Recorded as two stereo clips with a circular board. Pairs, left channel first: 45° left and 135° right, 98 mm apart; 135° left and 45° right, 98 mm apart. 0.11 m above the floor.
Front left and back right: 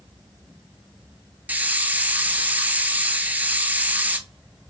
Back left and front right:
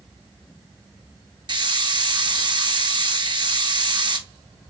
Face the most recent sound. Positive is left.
turn(degrees=-65)